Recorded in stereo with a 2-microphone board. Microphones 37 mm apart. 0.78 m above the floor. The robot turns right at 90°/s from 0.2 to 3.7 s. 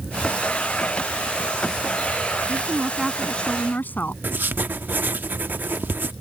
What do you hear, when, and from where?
2.5 s a woman speaking: 50° right; by 4.1 s 55° left
4.2 s writing: 60° right (ahead or behind)